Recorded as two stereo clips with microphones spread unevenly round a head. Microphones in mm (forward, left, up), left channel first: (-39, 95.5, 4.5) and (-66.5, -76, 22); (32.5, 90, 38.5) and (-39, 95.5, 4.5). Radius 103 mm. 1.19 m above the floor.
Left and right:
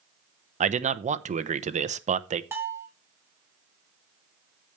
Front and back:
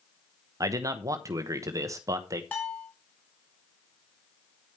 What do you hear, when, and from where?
0.6 s a man speaking: 150° right, 1.0 m
2.5 s a bell: 30° right, 1.4 m